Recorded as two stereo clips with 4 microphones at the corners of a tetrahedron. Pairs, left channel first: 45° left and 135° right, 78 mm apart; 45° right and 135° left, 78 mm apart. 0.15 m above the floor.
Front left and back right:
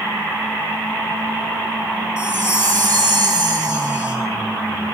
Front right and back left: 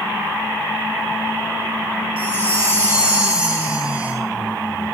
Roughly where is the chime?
Behind right.